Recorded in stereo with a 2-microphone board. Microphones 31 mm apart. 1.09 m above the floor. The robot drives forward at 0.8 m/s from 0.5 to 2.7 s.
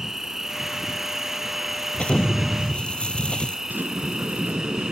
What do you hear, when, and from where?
0.0 s an insect: 15° right (ahead or behind)
1.9 s an explosion: 35° left (ahead or behind); by 3.6 s 30° left (ahead or behind)
3.7 s a sliding door: 85° right